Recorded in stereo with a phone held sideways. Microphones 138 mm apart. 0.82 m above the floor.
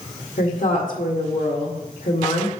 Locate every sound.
0.4 s a woman speaking: 75° left (ahead or behind), 2 m